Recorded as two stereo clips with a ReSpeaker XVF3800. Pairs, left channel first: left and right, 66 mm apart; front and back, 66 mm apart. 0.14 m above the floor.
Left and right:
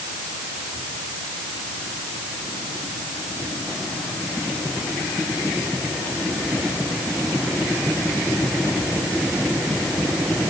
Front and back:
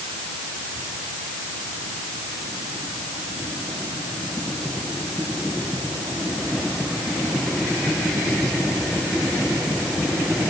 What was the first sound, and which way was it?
Only background noise.